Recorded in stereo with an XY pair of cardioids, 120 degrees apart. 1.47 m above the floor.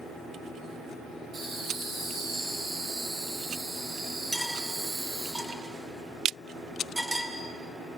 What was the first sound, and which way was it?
Laughter, 45° right.